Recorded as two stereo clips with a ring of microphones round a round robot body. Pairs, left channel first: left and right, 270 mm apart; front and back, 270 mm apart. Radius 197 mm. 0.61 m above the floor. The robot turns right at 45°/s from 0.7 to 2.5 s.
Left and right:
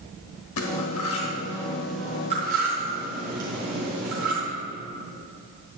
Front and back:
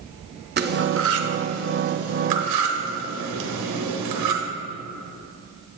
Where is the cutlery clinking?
125° left, 0.8 m; by 4.4 s 155° right, 0.8 m.